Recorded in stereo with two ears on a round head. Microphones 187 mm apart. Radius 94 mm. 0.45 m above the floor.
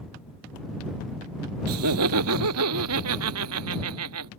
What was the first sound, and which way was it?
Laughter, 80° right.